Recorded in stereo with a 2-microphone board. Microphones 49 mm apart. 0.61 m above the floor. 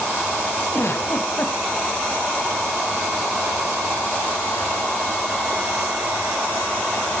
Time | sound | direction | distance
0.7 | a giggle | 55° left (ahead or behind) | 2 m